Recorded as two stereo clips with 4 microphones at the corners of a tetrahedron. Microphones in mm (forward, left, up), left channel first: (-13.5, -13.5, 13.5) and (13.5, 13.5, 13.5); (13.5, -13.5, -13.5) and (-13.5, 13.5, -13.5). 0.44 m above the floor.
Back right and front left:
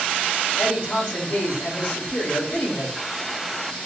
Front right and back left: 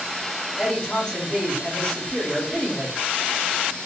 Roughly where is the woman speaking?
Right.